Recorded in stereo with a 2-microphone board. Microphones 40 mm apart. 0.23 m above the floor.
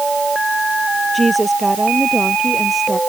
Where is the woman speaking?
5° left (ahead or behind); by 3.0 s centre (ahead or behind).